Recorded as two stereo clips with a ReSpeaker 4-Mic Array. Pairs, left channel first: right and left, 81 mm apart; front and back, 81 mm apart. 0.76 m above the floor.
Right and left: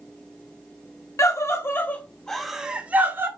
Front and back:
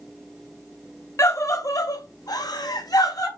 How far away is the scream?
About 0.9 m.